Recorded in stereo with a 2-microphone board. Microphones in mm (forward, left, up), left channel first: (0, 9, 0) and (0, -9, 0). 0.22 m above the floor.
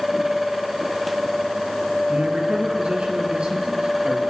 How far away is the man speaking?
About 4.5 m.